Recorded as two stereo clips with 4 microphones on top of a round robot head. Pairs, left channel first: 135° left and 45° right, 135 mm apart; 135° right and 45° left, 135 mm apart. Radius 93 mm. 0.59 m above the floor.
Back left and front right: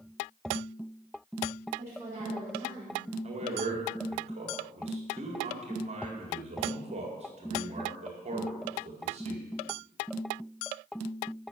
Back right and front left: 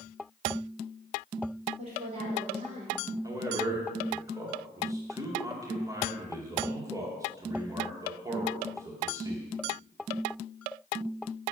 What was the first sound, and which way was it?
A woman speaking, 25° left.